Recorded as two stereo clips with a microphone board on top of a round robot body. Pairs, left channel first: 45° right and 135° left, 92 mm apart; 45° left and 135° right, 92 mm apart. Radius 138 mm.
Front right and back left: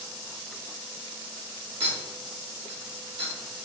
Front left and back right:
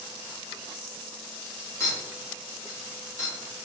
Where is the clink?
105° left, 2.5 m.